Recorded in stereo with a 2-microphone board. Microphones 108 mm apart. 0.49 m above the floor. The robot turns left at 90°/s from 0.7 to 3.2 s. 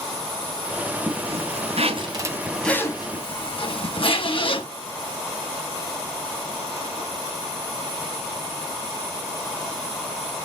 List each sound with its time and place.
1.1 s a zipper: 45° right, 2.5 m; by 4.7 s 125° left, 2.5 m